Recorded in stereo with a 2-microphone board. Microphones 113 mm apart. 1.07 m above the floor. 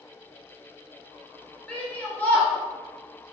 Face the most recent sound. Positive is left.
turn(degrees=15)  # may be behind; listen again after turning